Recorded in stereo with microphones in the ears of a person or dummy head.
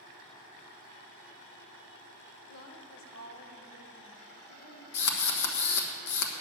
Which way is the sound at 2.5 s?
65° left (ahead or behind).